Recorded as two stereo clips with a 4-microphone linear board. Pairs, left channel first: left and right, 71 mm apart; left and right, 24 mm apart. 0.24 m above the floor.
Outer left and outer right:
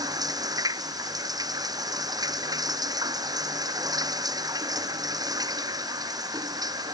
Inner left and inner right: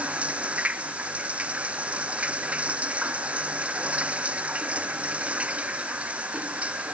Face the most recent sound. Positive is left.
turn(degrees=-65)  # may be behind; listen again after turning